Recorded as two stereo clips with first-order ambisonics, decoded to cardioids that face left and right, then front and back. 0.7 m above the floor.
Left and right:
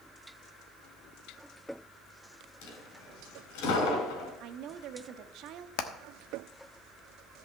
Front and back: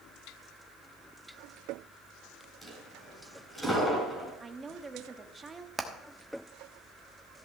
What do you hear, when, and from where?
2.6 s a dropped coin: 85° left, 3.5 m
4.4 s a woman speaking: 110° right, 0.8 m
5.8 s hammering: 100° left, 1.1 m